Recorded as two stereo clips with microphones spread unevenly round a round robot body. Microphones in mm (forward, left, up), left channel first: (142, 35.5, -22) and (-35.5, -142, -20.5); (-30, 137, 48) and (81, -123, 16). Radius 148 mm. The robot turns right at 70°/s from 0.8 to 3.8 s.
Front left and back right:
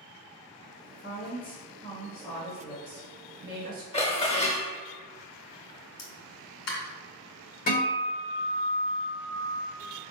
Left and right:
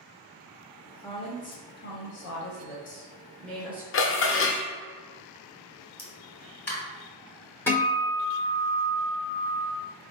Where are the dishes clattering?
100° left, 0.7 m.